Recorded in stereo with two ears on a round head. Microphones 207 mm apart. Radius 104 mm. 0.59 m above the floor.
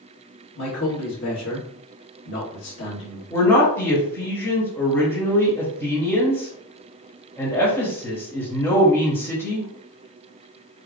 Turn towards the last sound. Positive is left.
turn(degrees=10)  # may be behind; listen again after turning